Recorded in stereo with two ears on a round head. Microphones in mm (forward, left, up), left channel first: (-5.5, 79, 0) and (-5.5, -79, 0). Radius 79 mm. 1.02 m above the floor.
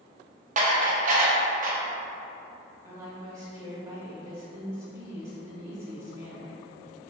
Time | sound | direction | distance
0.6 | dishes clattering | 45° right (ahead or behind) | 0.6 m
2.8 | a woman speaking | 15° right (ahead or behind) | 1.9 m